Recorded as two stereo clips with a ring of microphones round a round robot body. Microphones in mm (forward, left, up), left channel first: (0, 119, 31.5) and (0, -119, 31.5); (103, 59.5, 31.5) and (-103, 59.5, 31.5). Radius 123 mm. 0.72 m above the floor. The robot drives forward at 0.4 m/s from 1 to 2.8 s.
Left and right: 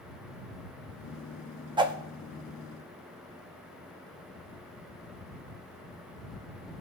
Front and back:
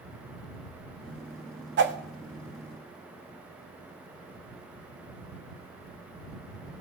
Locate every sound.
1.8 s a whoosh: 160° right, 0.7 m